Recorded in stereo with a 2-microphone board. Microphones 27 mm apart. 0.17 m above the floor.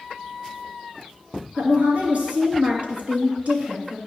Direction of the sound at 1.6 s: 55° right (ahead or behind).